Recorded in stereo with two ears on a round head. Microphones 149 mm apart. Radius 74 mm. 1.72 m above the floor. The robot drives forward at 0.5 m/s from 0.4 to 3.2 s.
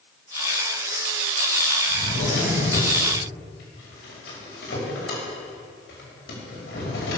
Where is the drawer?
80° left, 5.5 m; by 7.2 s 75° left (ahead or behind), 5.5 m.